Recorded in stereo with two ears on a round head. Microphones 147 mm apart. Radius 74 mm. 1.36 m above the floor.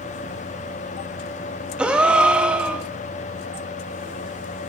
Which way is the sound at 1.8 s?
5° right (ahead or behind).